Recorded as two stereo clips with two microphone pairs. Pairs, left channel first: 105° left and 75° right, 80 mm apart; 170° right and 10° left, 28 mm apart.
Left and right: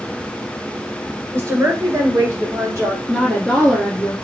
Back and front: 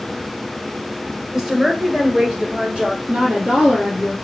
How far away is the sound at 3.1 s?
About 1.6 m.